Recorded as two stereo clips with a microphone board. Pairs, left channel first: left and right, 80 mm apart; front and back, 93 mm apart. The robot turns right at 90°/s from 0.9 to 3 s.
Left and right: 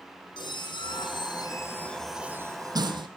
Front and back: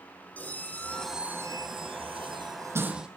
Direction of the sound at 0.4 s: 75° left.